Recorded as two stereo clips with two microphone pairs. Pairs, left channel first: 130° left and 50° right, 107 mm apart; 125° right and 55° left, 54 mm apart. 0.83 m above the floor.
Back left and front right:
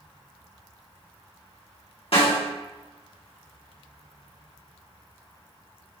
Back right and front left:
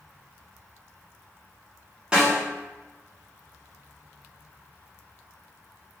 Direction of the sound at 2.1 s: 130° left.